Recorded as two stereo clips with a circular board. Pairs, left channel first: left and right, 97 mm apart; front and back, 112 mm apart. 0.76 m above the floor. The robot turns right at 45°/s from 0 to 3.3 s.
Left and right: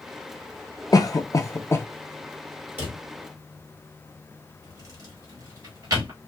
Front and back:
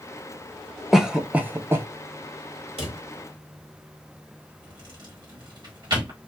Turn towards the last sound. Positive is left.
turn(degrees=-135)